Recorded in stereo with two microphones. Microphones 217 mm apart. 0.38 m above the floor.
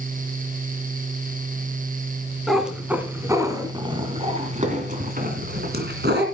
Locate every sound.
2.5 s a cat meowing: centre (ahead or behind), 2 m; by 6.2 s 55° right (ahead or behind), 2.5 m